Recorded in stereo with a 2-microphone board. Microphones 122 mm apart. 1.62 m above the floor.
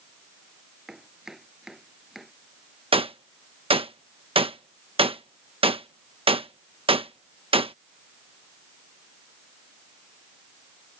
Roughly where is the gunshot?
Right.